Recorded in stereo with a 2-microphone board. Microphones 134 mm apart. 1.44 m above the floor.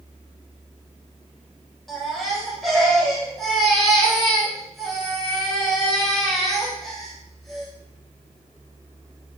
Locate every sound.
1.9 s a baby crying: centre (ahead or behind), 4.5 m